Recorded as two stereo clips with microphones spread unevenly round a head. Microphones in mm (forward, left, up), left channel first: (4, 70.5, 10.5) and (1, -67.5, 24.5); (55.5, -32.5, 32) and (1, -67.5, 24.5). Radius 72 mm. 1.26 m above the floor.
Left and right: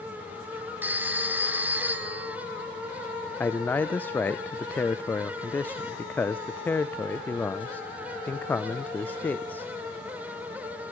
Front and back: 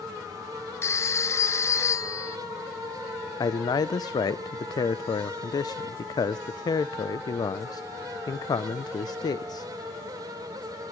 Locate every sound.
0.8 s a phone ringing: 15° right, 1.7 m
3.4 s a man speaking: 10° left, 0.6 m